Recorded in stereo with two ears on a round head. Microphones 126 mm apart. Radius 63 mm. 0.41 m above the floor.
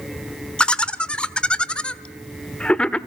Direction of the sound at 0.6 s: 10° left (ahead or behind).